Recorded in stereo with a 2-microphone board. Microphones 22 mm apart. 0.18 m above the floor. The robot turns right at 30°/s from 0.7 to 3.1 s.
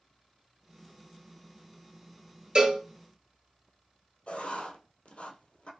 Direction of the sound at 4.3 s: 80° left.